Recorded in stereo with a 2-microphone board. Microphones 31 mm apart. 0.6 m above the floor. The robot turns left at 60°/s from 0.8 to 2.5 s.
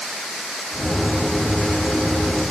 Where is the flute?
No flute in this recording.